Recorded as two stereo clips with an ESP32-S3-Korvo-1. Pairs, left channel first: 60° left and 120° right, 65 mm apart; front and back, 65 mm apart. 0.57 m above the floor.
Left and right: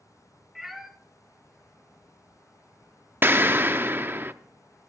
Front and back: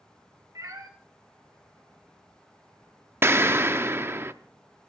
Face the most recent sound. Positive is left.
turn(degrees=-155)